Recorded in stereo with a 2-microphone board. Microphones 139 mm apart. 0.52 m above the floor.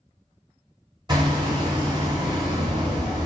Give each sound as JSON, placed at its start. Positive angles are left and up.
{"t": 1.1, "sound": "hammering", "side_deg": -30, "distance_m": 0.8}